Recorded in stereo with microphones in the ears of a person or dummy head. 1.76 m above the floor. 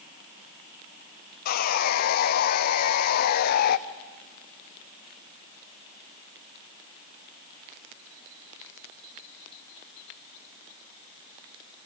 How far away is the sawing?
About 0.8 m.